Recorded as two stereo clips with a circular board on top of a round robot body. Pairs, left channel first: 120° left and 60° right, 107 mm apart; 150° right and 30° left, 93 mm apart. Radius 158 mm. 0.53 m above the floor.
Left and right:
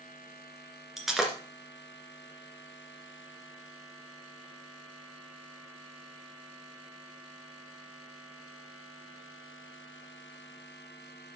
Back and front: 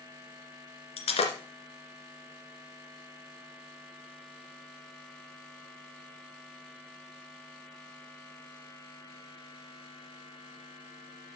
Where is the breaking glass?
145° right, 2.5 m.